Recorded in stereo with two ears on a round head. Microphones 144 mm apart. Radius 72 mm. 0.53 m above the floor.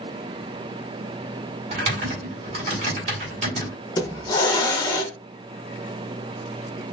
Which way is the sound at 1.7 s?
45° right (ahead or behind).